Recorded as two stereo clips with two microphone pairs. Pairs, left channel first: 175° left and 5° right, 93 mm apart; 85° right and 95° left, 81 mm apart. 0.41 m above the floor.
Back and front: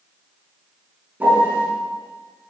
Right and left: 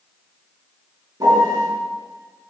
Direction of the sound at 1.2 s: 65° left.